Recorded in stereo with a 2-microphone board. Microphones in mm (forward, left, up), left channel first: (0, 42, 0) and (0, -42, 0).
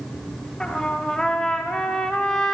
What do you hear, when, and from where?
0.6 s a trumpet: 5° left (ahead or behind), 0.6 m